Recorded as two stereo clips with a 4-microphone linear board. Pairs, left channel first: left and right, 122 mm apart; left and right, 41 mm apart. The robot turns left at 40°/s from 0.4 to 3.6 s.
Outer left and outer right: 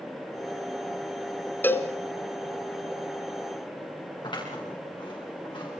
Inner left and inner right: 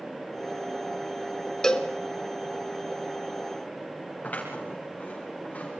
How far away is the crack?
I don't hear a crack.